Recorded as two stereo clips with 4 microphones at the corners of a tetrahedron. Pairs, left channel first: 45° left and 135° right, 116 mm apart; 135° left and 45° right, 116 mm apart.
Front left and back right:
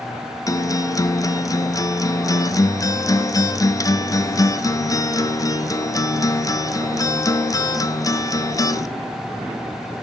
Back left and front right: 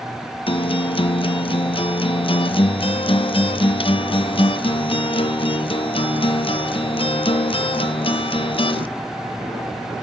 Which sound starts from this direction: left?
A guitar, at 0.5 s.